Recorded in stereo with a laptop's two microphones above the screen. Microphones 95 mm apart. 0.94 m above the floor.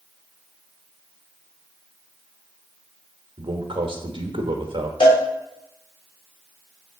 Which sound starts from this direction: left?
A cowbell, at 5.0 s.